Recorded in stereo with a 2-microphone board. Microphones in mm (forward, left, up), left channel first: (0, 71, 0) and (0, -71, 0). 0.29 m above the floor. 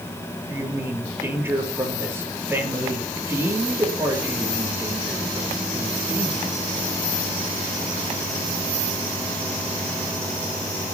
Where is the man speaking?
15° right (ahead or behind), 6.5 m.